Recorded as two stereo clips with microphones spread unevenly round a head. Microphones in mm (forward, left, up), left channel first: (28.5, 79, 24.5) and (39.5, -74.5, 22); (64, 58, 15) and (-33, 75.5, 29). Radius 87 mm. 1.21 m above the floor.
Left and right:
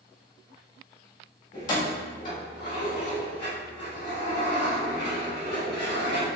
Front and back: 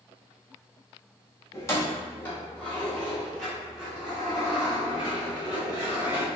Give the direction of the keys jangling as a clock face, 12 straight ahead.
10 o'clock.